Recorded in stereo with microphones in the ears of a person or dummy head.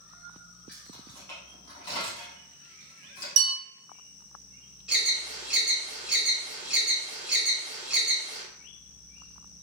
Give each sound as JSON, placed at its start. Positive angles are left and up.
{"t": 0.7, "sound": "keys jangling", "side_deg": 10, "distance_m": 1.7}
{"t": 3.4, "sound": "a bell", "side_deg": -65, "distance_m": 1.0}
{"t": 4.9, "sound": "an alarm", "side_deg": -5, "distance_m": 1.4}